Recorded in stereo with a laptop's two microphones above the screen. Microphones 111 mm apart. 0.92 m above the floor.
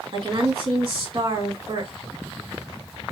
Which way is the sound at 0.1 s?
50° right (ahead or behind).